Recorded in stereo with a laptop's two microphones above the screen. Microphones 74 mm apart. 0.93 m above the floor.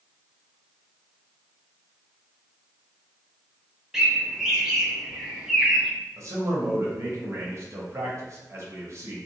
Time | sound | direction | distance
3.9 | a bird | 10° right (ahead or behind) | 0.6 m
6.2 | a man speaking | 45° right (ahead or behind) | 0.7 m